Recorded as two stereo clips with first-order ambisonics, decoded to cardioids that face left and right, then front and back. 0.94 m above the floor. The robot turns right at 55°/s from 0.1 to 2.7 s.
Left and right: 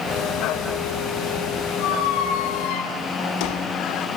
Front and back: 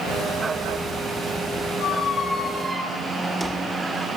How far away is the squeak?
About 2 m.